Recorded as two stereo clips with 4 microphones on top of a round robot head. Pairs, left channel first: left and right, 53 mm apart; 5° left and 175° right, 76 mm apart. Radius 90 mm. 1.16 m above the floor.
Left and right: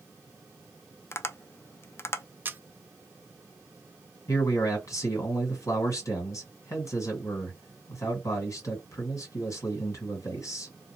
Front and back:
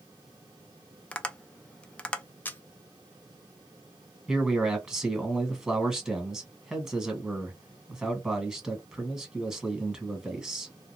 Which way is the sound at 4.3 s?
100° left.